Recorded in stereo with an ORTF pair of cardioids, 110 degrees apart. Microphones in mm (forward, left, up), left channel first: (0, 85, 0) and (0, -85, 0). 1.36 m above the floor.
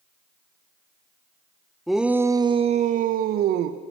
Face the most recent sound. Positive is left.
turn(degrees=-75)